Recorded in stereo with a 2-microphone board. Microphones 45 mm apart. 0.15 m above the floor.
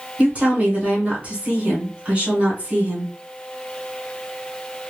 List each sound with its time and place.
0.2 s a woman speaking: 30° right (ahead or behind), 1.6 m